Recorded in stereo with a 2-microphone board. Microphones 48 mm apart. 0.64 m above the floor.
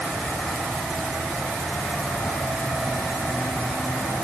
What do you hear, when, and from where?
Only background noise.